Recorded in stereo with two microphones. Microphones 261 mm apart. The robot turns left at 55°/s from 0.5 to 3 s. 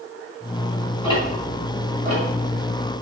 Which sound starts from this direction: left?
Ticking, at 1.0 s.